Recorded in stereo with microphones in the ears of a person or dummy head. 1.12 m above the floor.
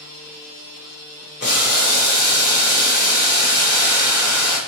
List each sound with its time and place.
1.4 s boiling: 50° left (ahead or behind), 1.2 m